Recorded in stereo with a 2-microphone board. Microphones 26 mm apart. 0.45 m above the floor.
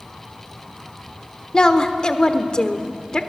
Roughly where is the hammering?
I don't hear hammering.